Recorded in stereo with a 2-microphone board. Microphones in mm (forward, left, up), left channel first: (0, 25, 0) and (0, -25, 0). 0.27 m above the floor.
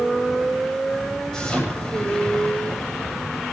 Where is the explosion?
10° left (ahead or behind), 8 m.